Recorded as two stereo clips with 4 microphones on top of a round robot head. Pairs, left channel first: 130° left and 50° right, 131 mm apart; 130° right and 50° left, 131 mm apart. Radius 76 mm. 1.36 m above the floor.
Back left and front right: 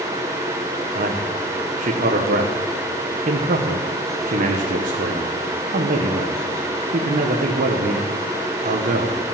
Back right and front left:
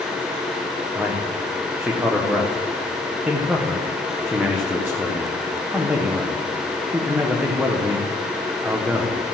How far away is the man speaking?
About 1.1 m.